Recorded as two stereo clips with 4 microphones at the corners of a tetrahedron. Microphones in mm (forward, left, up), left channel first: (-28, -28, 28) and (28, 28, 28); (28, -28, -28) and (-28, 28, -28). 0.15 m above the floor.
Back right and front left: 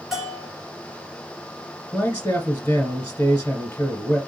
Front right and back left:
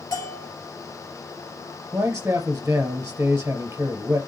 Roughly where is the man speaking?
Behind.